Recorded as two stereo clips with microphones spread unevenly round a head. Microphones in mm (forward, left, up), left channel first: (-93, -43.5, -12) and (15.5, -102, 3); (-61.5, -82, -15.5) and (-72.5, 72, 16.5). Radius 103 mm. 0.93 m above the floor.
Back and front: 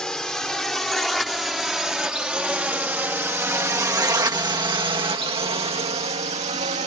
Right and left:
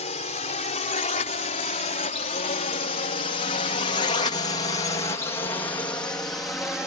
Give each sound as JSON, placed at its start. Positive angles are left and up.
{"t": 0.0, "sound": "a drone", "azimuth_deg": -125}